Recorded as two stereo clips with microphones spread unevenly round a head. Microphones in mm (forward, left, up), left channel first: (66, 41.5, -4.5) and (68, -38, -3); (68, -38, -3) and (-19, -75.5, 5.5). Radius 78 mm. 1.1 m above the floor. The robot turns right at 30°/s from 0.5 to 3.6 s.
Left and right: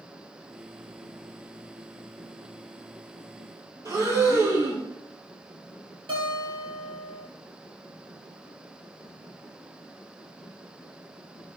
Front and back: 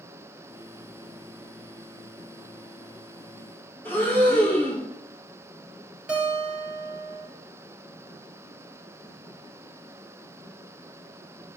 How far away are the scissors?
I don't hear scissors.